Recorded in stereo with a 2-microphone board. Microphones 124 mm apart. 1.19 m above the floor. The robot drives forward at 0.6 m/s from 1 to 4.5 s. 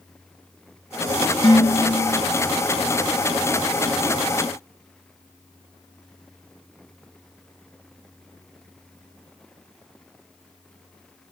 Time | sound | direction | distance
1.4 | dishes clattering | 40° left (ahead or behind) | 3 m